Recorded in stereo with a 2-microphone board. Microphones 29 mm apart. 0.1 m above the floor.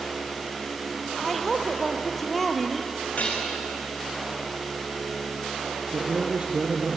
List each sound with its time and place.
1.2 s a woman speaking: centre (ahead or behind), 2.5 m
3.2 s dishes clattering: 45° left (ahead or behind), 5.5 m
5.9 s a man speaking: 40° right (ahead or behind), 2.5 m